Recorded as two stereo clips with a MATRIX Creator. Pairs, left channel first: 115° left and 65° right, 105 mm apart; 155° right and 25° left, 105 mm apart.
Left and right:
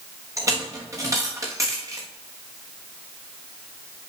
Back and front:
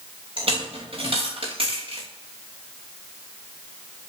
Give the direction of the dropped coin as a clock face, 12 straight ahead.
12 o'clock.